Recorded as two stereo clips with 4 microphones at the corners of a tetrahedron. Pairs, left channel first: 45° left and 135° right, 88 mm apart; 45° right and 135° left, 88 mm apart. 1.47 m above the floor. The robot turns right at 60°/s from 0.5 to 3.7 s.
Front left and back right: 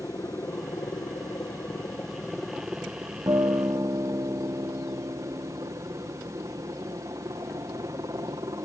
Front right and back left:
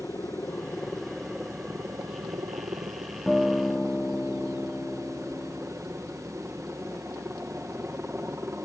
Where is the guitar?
135° right; by 5.7 s 110° right.